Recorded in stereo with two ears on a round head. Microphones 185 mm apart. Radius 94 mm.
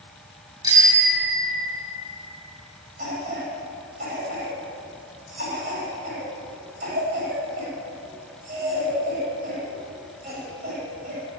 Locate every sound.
0.6 s a bicycle bell: 20° right (ahead or behind), 6.5 m; by 1.9 s 30° right (ahead or behind), 6.5 m
3.0 s a cough: 40° right (ahead or behind), 9 m